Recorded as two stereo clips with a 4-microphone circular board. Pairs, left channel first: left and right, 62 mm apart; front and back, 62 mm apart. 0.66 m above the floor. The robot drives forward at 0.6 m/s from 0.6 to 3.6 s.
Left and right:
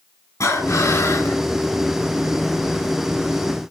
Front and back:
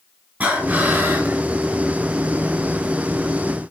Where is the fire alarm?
I don't hear a fire alarm.